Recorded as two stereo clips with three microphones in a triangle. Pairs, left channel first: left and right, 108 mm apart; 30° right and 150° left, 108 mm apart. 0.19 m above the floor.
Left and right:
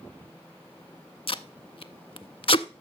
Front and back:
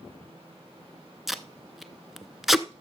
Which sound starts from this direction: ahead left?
Tape being pulled, at 1.3 s.